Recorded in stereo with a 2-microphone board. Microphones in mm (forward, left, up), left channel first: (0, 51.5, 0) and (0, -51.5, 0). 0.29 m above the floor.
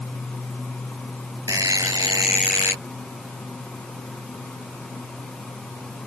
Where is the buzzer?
35° right (ahead or behind).